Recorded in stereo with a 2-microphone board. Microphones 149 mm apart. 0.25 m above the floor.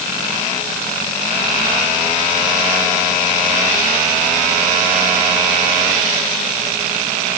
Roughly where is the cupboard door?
No cupboard door in this recording.